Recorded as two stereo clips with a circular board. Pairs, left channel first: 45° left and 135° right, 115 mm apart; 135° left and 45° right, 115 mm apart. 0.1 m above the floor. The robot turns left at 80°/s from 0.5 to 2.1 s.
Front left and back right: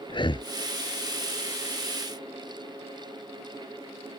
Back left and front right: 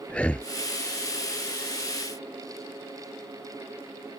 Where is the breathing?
60° left.